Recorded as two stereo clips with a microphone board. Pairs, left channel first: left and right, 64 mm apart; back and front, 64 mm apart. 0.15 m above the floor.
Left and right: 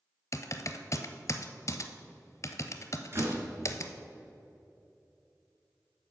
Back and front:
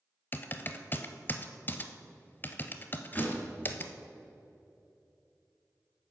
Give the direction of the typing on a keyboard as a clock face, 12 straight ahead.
8 o'clock.